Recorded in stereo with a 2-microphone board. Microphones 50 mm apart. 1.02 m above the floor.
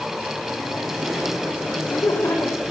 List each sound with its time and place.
1.7 s laughter: 85° left, 4 m